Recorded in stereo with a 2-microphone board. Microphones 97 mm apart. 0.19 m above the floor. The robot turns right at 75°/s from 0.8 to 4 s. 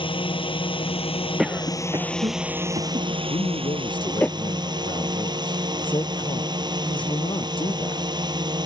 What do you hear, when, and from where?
0.0 s a drone: 70° left; by 8.7 s 50° right
1.4 s a cough: centre (ahead or behind); by 4.3 s 15° left (ahead or behind)
3.3 s a man speaking: 70° left; by 8.0 s 120° left